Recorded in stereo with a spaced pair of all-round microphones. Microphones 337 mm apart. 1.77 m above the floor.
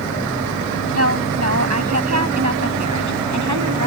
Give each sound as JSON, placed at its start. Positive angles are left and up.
{"t": 0.9, "sound": "a woman speaking", "side_deg": -45}